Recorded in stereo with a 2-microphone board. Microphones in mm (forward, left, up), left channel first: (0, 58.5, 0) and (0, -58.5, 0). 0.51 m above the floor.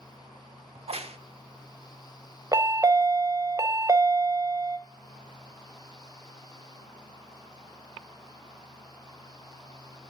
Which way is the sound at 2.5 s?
30° right (ahead or behind).